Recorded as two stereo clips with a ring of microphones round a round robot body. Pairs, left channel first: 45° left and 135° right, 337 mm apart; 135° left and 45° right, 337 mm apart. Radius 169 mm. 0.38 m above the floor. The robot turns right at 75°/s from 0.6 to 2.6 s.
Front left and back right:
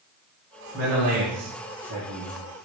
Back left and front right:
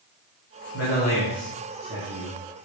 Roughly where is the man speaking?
Behind.